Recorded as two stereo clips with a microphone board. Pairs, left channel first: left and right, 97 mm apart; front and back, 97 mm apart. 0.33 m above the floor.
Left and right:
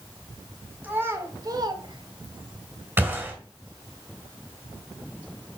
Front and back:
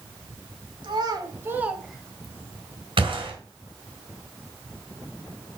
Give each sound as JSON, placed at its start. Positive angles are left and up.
{"t": 0.8, "sound": "a child speaking", "azimuth_deg": -160, "distance_m": 1.4}
{"t": 3.0, "sound": "a gunshot", "azimuth_deg": -155, "distance_m": 3.0}